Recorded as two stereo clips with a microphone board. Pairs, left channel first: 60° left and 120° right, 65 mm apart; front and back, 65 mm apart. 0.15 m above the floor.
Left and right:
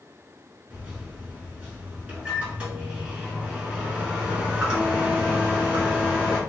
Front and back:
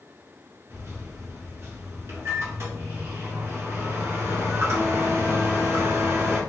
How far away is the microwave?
About 1.5 m.